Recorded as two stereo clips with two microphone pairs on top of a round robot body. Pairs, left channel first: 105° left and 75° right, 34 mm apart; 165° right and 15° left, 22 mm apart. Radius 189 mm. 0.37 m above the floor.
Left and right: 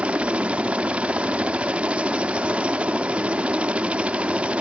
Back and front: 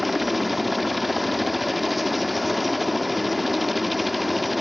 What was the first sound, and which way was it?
A helicopter, 75° right.